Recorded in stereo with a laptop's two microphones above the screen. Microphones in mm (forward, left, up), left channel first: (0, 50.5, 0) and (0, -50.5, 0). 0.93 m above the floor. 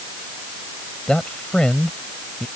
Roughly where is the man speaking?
Centre.